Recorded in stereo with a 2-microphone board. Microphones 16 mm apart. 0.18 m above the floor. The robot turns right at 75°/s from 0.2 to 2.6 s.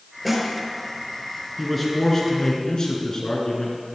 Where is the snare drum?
5° right (ahead or behind), 4 m; by 0.5 s 20° right (ahead or behind), 4 m.